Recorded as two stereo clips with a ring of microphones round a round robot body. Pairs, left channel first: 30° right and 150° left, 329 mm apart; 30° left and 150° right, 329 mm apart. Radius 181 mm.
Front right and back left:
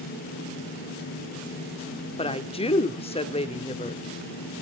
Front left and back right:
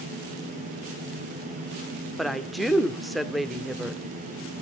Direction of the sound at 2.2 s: 60° right.